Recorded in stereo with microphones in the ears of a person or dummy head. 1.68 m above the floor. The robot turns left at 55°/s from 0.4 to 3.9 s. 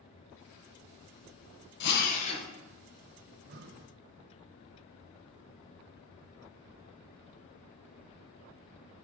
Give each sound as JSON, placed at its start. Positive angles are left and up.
{"t": 1.8, "sound": "a drill", "azimuth_deg": 60, "distance_m": 1.8}
{"t": 3.3, "sound": "breathing", "azimuth_deg": -70, "distance_m": 0.8}